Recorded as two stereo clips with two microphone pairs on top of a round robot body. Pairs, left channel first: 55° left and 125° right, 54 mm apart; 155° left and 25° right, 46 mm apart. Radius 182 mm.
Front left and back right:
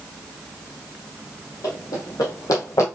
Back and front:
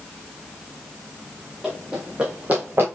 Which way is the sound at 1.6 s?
60° left.